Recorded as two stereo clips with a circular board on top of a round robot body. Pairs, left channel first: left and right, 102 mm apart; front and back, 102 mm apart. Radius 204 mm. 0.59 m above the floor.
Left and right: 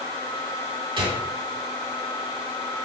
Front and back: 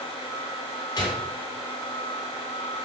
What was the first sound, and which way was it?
A gunshot, 55° right.